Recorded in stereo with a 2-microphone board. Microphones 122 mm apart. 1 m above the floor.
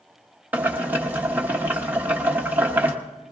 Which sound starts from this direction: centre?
Boiling, at 0.5 s.